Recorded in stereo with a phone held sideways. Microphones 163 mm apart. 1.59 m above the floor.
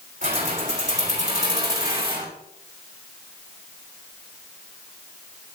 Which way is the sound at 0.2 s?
50° right (ahead or behind).